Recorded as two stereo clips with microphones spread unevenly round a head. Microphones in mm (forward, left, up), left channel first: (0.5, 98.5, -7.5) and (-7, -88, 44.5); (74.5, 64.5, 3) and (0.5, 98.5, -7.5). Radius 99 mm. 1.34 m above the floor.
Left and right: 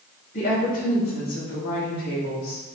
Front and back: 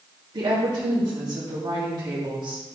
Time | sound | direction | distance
0.3 | a woman speaking | 135° left | 3 m